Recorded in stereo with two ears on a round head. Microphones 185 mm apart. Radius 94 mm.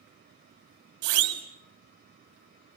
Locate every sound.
1.0 s a siren: 80° right, 5.5 m